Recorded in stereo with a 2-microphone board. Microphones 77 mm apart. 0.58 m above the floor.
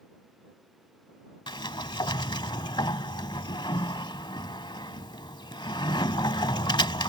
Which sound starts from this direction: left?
A sliding door, at 1.5 s.